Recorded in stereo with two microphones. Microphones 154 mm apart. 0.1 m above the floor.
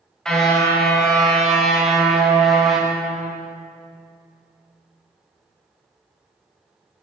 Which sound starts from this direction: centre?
A car horn, at 0.2 s.